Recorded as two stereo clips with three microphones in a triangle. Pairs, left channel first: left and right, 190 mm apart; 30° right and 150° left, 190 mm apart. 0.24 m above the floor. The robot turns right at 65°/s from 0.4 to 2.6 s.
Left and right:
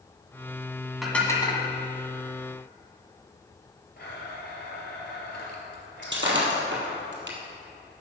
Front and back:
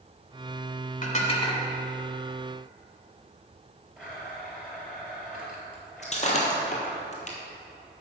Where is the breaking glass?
85° right, 1.7 m.